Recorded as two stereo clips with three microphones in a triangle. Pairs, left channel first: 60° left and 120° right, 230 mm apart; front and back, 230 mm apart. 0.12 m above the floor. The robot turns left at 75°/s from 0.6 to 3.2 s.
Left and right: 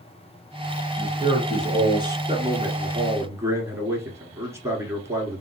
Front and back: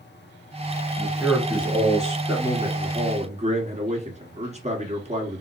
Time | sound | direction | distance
1.0 | a man speaking | 85° right | 1.3 m
2.3 | a man speaking | 115° right | 1.3 m